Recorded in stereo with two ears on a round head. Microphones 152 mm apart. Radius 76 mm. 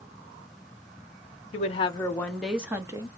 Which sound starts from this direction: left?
A woman speaking, at 1.5 s.